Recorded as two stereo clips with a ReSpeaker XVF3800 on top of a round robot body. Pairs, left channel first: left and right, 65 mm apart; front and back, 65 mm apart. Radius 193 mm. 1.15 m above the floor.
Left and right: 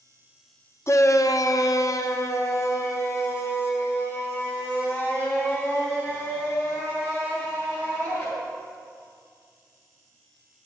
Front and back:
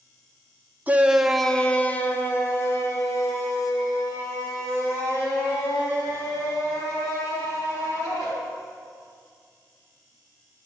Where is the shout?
120° left, 0.7 m; by 8.2 s 30° left, 5 m.